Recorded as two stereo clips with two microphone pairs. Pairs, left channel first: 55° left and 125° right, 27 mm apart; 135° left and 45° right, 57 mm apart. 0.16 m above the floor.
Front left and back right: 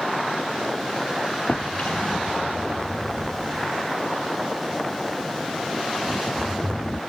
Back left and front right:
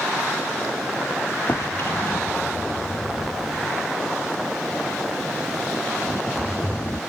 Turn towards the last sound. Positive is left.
turn(degrees=90)